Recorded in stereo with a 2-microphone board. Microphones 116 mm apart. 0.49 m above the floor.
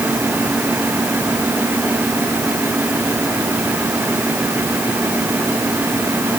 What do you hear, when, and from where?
Only background noise.